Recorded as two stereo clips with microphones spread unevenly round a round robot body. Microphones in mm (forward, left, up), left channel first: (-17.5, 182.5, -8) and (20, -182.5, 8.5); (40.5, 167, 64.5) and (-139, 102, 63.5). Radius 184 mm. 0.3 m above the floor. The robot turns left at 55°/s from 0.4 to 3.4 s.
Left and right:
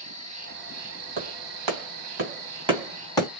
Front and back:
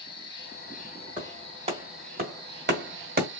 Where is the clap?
75° right, 1.8 m; by 3.3 s 170° left, 1.8 m.